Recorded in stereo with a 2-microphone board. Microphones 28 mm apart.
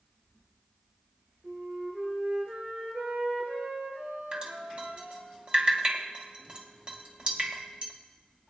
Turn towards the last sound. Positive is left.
turn(degrees=-35)  # may be behind; listen again after turning